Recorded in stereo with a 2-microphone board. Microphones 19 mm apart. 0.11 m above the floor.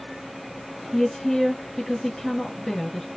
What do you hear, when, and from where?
0.9 s a woman speaking: 20° left (ahead or behind), 1.2 m